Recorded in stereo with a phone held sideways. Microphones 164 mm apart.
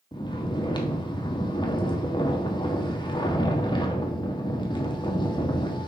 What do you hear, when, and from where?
0.1 s snoring: 30° left (ahead or behind), 1.3 m